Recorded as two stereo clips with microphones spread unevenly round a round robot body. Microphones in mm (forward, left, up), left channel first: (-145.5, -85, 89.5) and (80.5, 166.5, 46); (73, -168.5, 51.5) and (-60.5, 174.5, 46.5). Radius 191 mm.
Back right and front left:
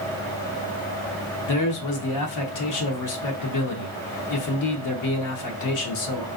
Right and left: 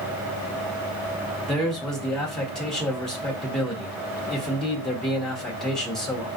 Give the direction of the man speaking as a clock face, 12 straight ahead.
5 o'clock.